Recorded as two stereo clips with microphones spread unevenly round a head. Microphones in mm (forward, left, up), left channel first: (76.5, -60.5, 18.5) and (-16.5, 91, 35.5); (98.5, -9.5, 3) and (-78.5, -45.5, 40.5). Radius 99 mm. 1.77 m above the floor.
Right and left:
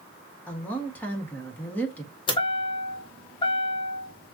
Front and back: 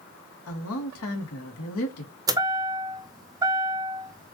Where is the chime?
120° right, 0.6 m.